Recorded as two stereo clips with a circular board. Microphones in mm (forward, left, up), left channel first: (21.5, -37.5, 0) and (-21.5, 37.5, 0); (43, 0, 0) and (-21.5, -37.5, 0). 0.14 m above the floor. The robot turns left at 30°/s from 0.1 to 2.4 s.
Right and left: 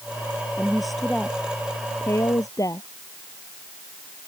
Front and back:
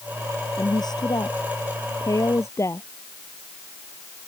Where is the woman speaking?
40° left; by 2.9 s 15° right.